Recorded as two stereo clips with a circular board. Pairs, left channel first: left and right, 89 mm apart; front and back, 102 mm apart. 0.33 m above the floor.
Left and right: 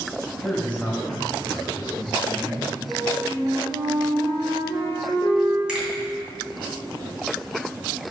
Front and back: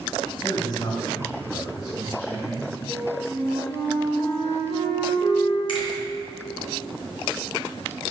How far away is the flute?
About 2.5 m.